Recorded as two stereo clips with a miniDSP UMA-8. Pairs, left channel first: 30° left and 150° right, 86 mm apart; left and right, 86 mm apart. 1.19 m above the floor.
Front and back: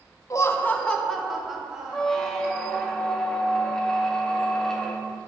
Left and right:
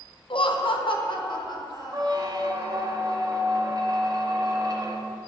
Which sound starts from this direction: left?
Laughter, at 0.3 s.